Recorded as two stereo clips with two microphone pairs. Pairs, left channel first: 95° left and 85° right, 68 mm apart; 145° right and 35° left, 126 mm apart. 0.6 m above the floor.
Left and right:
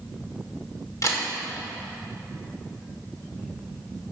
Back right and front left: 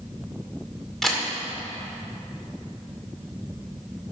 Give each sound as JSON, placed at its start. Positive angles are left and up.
{"t": 1.0, "sound": "a camera shutter", "azimuth_deg": 125, "distance_m": 2.0}